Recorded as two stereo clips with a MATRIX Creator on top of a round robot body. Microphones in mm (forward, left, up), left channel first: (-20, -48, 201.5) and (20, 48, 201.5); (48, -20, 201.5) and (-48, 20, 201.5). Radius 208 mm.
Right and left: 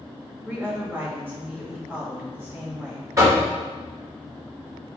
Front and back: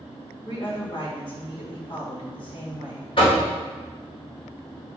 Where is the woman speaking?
Straight ahead, 1.7 m.